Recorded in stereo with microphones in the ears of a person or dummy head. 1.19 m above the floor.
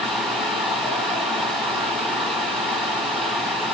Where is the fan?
Centre (ahead or behind), 2.5 m.